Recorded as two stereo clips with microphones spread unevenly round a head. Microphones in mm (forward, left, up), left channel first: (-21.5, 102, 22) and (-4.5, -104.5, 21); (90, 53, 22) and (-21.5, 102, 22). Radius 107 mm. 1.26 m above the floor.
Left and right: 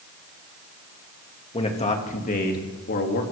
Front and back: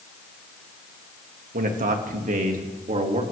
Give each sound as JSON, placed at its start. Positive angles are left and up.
{"t": 1.5, "sound": "a man speaking", "azimuth_deg": 160, "distance_m": 1.7}